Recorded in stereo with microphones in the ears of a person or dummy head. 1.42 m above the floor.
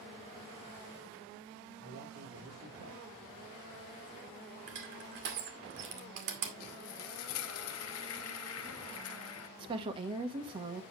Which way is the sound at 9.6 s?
30° right (ahead or behind).